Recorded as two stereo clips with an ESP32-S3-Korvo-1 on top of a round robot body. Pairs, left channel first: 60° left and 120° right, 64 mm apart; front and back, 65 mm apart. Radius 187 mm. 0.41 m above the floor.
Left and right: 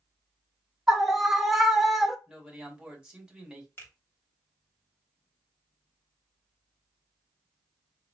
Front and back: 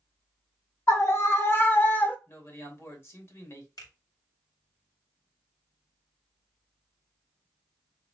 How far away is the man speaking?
About 2 m.